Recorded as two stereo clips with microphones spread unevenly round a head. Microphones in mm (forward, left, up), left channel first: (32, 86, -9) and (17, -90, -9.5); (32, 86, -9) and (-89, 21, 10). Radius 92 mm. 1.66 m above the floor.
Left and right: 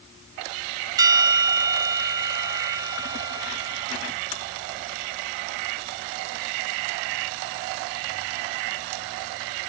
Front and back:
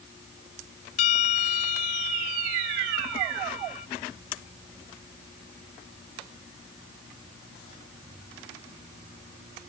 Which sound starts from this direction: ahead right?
A bell, at 1.0 s.